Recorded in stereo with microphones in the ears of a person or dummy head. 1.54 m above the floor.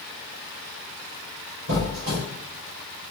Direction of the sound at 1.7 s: 45° right (ahead or behind).